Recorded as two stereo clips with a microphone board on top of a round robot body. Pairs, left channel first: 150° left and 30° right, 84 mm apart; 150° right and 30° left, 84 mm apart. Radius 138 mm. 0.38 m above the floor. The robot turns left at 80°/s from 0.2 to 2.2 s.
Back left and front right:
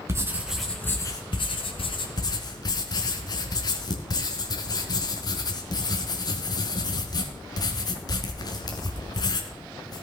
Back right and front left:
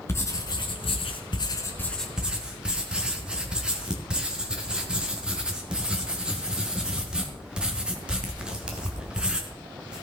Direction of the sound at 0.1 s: 90° right.